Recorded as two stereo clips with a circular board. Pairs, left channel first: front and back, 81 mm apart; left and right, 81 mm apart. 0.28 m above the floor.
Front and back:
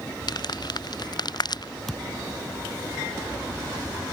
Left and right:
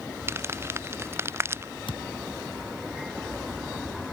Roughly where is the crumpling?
Ahead right.